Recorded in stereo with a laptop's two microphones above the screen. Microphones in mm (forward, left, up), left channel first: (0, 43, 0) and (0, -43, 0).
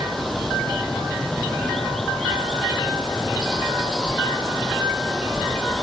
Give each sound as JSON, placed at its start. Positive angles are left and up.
{"t": 0.0, "sound": "running water", "side_deg": 0}